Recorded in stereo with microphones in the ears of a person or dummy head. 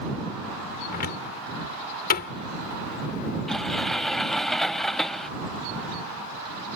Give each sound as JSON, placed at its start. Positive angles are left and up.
{"t": 0.9, "sound": "a cupboard door", "side_deg": 55}
{"t": 3.5, "sound": "a sliding door", "side_deg": 5}